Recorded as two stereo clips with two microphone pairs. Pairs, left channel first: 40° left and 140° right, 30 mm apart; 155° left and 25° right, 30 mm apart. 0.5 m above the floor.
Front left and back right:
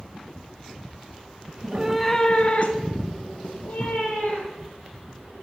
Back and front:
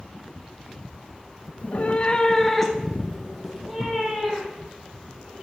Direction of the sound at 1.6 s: 175° left.